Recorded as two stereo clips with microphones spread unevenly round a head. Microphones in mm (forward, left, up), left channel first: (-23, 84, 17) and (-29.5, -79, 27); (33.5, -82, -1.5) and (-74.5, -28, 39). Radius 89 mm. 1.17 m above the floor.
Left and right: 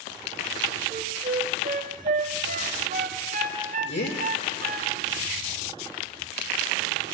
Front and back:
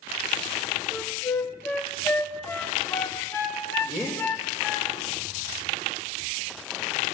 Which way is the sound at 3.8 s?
70° left.